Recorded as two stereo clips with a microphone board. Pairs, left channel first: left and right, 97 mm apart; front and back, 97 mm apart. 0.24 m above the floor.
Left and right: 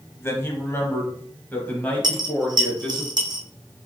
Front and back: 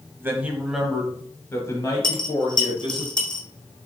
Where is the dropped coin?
45° right, 1.0 m.